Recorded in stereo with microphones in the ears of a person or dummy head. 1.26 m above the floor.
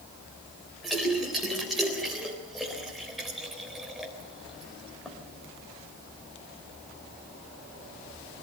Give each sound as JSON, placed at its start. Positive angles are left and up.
{"t": 0.8, "sound": "a splash", "side_deg": -5, "distance_m": 3.5}